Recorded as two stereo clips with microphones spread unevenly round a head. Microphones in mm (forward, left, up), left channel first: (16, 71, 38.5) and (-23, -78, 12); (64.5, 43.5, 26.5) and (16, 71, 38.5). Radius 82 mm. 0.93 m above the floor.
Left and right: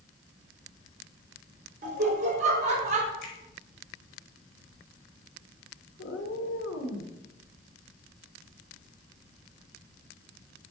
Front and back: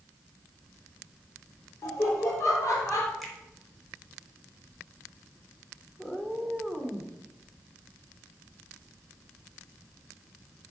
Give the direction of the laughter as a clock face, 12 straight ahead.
2 o'clock.